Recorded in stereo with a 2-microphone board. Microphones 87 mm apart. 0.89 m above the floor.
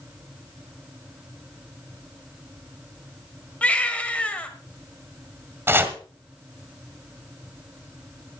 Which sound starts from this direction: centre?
A baby crying, at 3.6 s.